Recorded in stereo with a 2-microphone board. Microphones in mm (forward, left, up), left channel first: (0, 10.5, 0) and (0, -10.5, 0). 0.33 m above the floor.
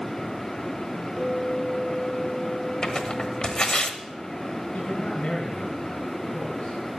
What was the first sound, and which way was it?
A clink, 40° left (ahead or behind).